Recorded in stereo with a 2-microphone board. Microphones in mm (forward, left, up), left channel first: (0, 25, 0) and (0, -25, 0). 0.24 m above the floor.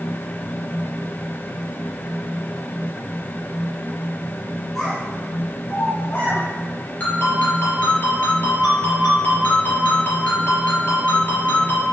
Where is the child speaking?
Centre (ahead or behind), 1.7 m; by 6.4 s 45° left (ahead or behind), 1.4 m.